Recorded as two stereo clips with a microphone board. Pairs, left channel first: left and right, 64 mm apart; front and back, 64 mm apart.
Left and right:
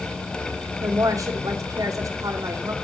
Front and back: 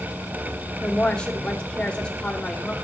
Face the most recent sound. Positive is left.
turn(degrees=-75)